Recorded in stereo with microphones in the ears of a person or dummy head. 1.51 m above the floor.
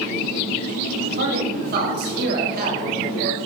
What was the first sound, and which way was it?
A man speaking, 55° right (ahead or behind).